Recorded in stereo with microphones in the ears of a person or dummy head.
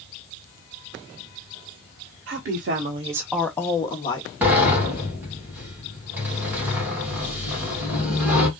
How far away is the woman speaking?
About 1.1 m.